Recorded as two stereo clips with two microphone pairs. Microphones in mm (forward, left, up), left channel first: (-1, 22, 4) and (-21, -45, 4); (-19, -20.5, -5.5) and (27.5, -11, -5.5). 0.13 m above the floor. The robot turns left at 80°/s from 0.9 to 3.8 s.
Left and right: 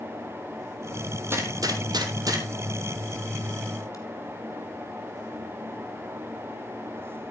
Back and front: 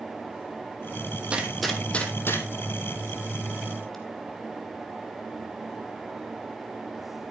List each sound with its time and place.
1.3 s a gunshot: 50° right, 2.5 m; by 4.0 s 110° left, 2.5 m